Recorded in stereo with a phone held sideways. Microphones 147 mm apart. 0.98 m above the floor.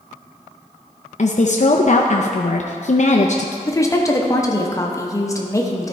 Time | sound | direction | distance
1.2 | a woman speaking | 55° left (ahead or behind) | 0.5 m
3.7 | a woman speaking | 20° left (ahead or behind) | 0.9 m